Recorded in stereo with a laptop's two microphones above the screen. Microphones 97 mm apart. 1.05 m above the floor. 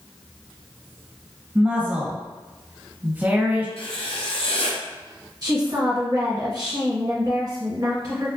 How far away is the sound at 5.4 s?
About 0.8 m.